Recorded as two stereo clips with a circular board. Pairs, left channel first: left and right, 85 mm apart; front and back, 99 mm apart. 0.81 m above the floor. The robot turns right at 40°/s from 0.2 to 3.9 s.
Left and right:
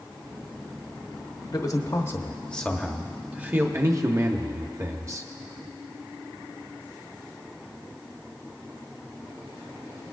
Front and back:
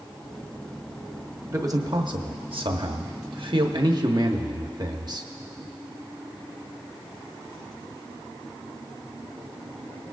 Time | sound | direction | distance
1.5 | a man speaking | 125° left | 1.0 m